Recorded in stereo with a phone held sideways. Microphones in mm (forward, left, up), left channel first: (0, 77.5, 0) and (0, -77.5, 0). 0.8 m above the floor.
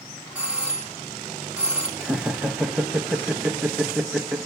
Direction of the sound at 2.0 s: 5° right (ahead or behind).